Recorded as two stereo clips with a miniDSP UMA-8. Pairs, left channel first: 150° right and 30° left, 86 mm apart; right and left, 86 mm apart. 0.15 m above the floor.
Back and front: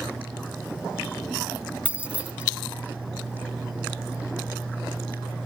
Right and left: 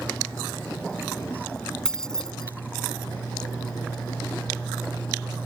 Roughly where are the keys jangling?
Ahead.